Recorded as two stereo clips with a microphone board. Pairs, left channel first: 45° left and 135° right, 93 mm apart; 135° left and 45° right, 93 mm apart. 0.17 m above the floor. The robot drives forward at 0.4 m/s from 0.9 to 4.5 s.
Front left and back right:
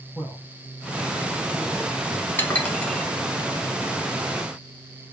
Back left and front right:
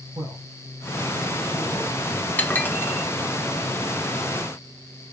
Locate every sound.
0.1 s a man speaking: 15° right, 4 m
2.4 s dishes clattering: 80° left, 0.9 m; by 3.5 s 135° left, 0.9 m